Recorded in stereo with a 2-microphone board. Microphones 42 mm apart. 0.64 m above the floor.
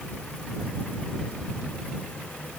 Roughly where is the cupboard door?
I don't hear a cupboard door.